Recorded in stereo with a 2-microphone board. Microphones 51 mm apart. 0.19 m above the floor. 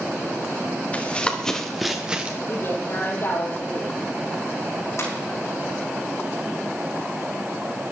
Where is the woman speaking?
45° left (ahead or behind), 5 m.